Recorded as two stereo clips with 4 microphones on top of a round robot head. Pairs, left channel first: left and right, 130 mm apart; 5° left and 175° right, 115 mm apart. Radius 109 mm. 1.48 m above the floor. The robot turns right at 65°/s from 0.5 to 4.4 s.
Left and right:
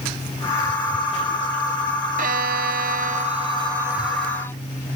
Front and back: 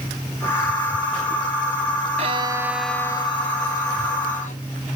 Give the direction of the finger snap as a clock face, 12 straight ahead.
No finger snap in this recording.